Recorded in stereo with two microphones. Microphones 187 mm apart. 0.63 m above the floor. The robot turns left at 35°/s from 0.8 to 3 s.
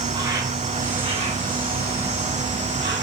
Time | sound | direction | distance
0.0 | an insect | 20° right | 2 m